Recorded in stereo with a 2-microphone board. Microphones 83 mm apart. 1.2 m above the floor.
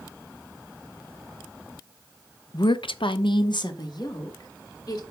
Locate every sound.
2.5 s a woman speaking: 50° left (ahead or behind), 0.6 m